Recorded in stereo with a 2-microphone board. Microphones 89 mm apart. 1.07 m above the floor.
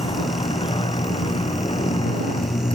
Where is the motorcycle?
80° left; by 2.8 s 85° left.